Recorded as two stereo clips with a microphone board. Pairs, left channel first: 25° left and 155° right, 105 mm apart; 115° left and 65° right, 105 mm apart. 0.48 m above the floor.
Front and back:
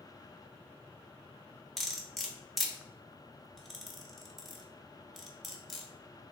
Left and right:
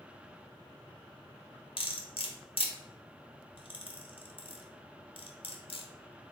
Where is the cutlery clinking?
110° left, 0.7 m.